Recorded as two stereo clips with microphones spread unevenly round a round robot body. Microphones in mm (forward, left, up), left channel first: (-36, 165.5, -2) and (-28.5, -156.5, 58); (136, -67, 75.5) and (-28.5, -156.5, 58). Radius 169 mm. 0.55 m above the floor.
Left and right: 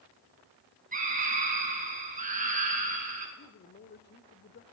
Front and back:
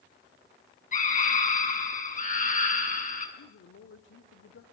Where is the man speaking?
35° left, 1.7 m.